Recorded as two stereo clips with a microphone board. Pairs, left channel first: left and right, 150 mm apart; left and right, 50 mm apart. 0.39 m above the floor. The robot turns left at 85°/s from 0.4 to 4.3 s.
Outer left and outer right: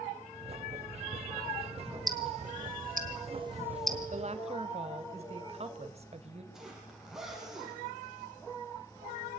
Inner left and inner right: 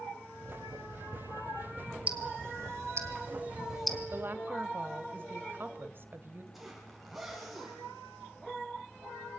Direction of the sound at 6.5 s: 5° right (ahead or behind).